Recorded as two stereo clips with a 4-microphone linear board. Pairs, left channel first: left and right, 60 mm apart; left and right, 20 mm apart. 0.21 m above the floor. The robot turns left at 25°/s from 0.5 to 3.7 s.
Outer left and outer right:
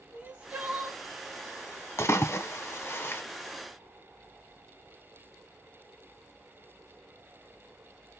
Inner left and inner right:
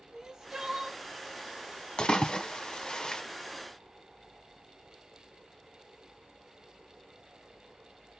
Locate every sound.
0.1 s crying: 25° right (ahead or behind), 1.1 m; by 1.0 s 30° right (ahead or behind), 1.1 m
2.0 s a splash: 45° left (ahead or behind), 0.8 m; by 3.2 s 40° left (ahead or behind), 0.8 m